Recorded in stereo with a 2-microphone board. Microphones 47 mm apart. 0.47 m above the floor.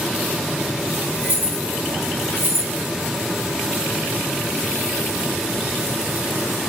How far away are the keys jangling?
About 1.7 m.